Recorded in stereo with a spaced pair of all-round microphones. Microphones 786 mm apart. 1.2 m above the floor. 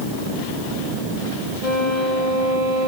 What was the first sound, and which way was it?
A violin, 50° left (ahead or behind).